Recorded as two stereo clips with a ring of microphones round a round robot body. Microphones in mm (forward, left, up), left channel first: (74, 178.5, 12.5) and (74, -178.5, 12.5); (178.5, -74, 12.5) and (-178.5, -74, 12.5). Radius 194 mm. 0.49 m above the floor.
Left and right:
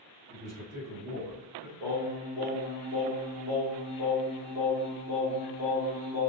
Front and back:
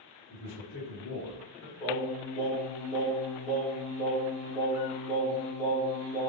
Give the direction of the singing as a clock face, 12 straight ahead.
2 o'clock.